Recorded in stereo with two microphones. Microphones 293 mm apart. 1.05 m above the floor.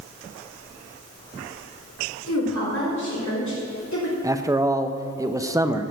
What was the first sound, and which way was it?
A woman speaking, 75° left (ahead or behind).